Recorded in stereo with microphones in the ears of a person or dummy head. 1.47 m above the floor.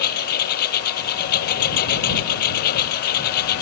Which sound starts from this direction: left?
A lawn mower, at 0.0 s.